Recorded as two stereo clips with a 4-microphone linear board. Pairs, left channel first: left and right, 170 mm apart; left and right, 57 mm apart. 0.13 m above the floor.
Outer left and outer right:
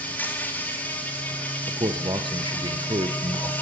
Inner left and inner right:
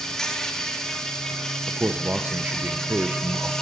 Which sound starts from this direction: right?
A man speaking, at 1.7 s.